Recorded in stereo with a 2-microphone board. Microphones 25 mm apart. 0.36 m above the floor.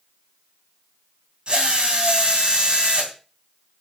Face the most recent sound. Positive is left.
turn(degrees=-40)  # may be behind; listen again after turning